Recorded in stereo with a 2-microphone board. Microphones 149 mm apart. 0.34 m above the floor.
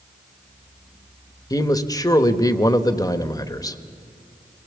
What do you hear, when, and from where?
1.5 s a man speaking: 25° left (ahead or behind), 1.0 m